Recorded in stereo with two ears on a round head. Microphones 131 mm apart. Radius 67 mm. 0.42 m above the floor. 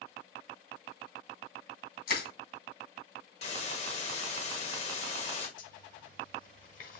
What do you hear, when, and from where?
2.1 s crushing: 75° left (ahead or behind), 2.5 m
3.4 s a hiss: 45° left (ahead or behind), 1.5 m
5.6 s a zipper: 55° left (ahead or behind), 1.1 m